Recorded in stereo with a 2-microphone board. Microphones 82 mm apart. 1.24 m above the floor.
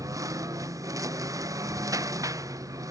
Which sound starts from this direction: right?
A lawn mower, at 0.0 s.